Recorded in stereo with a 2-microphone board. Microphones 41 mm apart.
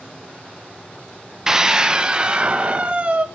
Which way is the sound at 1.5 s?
15° right (ahead or behind).